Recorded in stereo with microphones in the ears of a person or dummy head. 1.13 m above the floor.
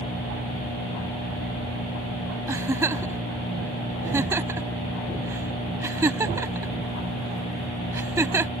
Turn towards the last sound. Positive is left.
turn(degrees=-20)  # may be behind; listen again after turning